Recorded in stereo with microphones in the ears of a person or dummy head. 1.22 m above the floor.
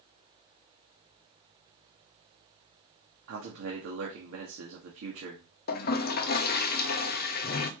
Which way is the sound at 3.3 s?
85° right.